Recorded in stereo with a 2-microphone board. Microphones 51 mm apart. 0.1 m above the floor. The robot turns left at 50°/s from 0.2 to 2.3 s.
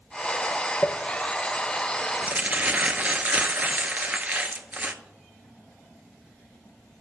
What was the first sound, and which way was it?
Crumpling, 20° left (ahead or behind).